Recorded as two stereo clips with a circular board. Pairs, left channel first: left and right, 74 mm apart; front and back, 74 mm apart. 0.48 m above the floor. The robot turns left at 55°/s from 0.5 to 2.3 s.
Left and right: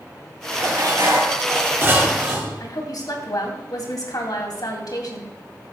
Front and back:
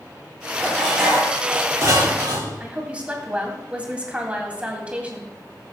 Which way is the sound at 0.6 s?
75° right.